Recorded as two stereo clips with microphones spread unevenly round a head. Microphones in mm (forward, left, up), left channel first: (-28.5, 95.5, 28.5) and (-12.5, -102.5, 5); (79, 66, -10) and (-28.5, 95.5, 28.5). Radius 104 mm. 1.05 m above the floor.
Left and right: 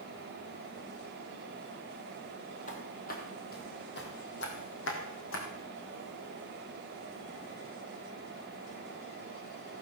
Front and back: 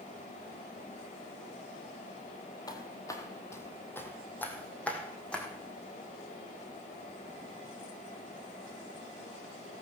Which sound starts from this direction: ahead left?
Footsteps, at 2.7 s.